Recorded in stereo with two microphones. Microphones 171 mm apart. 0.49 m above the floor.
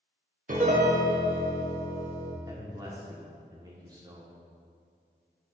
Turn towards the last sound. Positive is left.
turn(degrees=-25)  # may be behind; listen again after turning